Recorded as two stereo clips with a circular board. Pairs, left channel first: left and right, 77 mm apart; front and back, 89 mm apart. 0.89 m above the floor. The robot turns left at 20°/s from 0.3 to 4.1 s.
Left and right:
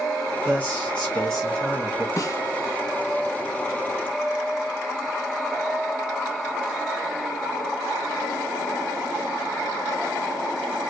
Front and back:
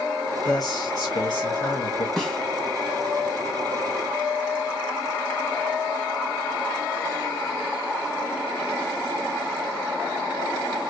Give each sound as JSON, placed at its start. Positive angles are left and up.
{"t": 0.5, "sound": "a man speaking", "azimuth_deg": 25, "distance_m": 1.5}
{"t": 2.2, "sound": "a snare drum", "azimuth_deg": 80, "distance_m": 1.1}